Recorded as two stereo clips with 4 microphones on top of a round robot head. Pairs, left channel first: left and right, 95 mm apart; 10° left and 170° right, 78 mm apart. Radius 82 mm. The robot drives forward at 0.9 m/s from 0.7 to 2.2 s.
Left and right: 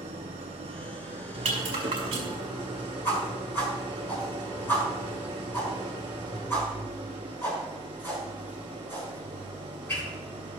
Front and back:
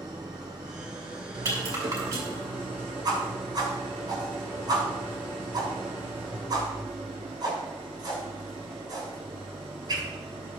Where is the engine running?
115° right, 1.8 m; by 10.6 s 140° right, 2.5 m.